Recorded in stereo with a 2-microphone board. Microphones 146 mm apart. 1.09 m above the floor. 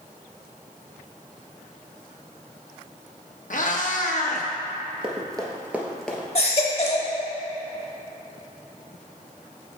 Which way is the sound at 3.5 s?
60° left (ahead or behind).